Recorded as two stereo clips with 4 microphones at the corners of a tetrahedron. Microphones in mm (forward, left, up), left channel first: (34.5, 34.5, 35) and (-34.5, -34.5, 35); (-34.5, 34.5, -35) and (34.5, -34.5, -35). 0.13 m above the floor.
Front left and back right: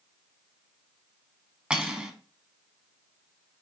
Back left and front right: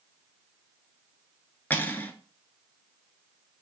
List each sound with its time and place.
1.7 s cutlery clinking: 160° left, 0.7 m